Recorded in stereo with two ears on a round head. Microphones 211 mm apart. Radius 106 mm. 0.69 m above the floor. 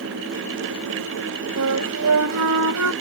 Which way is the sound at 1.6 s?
75° right (ahead or behind).